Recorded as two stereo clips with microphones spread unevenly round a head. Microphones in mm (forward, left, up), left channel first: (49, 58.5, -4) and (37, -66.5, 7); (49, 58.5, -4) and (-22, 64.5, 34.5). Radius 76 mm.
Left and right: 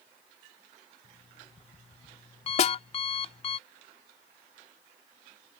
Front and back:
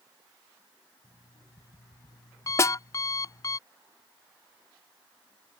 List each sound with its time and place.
1.0 s an alarm clock: 40° left
2.6 s a snare drum: 50° left